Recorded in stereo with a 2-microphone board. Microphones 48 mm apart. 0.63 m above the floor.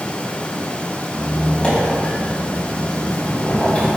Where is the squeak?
20° left (ahead or behind), 3 m.